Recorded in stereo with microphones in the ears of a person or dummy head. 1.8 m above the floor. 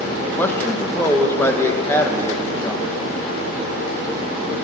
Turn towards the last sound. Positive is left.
turn(degrees=15)  # may be behind; listen again after turning